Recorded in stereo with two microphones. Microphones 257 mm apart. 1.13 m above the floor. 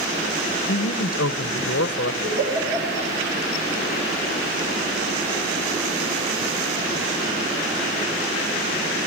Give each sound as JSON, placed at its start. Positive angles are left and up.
{"t": 0.7, "sound": "a man speaking", "side_deg": 60, "distance_m": 0.8}
{"t": 2.2, "sound": "a giggle", "side_deg": -40, "distance_m": 5.5}